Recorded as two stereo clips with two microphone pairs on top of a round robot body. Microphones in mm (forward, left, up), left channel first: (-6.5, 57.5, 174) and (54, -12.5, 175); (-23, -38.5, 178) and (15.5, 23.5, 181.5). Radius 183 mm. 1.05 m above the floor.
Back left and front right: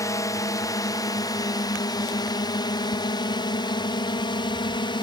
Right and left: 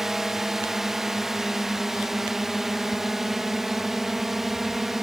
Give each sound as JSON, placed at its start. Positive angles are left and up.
{"t": 0.0, "sound": "a drone", "azimuth_deg": 145}